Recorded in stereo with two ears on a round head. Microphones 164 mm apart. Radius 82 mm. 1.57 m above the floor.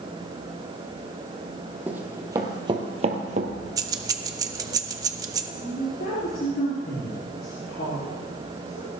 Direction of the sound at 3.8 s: 20° right (ahead or behind).